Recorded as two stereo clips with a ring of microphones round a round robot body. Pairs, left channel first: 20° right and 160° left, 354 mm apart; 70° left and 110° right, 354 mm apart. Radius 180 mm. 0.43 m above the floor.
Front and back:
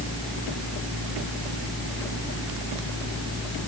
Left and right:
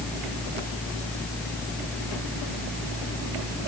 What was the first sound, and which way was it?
Only background noise.